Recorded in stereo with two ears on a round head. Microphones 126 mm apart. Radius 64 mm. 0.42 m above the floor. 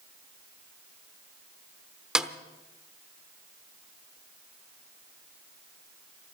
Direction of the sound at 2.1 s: 5° right (ahead or behind).